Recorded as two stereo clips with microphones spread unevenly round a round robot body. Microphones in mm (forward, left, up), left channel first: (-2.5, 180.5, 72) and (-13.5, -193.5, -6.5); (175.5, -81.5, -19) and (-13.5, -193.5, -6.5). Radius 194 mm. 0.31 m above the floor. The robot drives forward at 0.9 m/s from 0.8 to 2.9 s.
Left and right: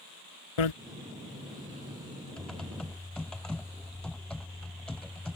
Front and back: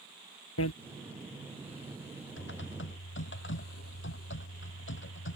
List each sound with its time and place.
0.6 s a bicycle bell: 70° left
2.4 s typing on a keyboard: straight ahead